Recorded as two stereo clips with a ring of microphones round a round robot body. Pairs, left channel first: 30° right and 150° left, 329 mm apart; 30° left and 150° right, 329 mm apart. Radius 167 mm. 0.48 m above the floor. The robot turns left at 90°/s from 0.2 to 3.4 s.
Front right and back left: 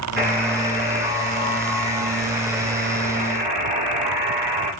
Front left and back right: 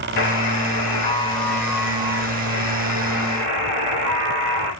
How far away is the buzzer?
About 2 m.